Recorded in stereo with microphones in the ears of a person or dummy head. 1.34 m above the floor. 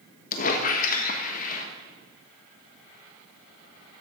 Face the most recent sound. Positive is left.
turn(degrees=45)  # may be behind; listen again after turning